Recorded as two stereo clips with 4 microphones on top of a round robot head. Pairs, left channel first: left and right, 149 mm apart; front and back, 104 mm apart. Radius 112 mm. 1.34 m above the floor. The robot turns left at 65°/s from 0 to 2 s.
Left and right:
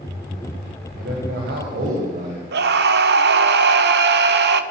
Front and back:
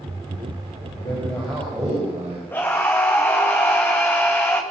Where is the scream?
80° right, 1.6 m.